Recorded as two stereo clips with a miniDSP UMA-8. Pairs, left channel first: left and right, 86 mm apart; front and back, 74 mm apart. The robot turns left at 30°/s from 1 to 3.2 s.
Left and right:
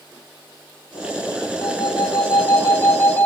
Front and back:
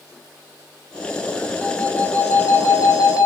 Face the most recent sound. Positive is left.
turn(degrees=30)